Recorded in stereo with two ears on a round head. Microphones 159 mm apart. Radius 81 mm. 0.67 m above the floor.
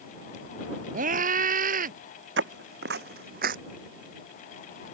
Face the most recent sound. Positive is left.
turn(degrees=-50)  # may be behind; listen again after turning